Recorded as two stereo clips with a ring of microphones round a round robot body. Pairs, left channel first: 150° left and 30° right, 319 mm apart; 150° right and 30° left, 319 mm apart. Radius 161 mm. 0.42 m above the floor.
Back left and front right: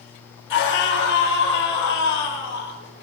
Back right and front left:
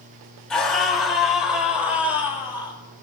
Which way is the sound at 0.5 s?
120° left.